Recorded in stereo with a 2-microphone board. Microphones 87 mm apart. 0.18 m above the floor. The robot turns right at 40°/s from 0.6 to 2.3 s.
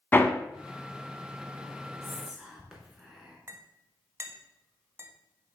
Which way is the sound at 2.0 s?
5° left (ahead or behind).